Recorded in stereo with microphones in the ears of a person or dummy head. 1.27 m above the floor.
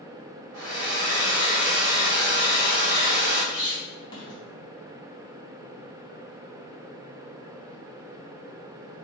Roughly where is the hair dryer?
Right.